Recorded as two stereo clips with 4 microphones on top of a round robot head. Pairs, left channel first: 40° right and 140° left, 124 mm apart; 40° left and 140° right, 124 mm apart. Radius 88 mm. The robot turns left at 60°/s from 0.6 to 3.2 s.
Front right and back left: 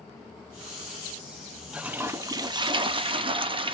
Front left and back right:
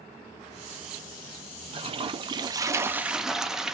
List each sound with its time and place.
1.7 s a toilet flushing: 140° right, 0.7 m; by 3.7 s 135° left, 0.7 m